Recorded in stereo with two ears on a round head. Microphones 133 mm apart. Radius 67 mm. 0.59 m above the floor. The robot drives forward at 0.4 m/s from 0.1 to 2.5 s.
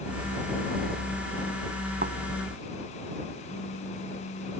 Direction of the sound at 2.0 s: 65° right (ahead or behind).